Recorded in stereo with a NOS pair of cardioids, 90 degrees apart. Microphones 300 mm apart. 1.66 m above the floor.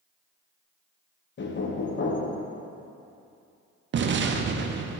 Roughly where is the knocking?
Ahead left.